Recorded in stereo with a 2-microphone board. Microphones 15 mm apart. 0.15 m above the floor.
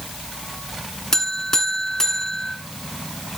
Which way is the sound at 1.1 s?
35° left (ahead or behind).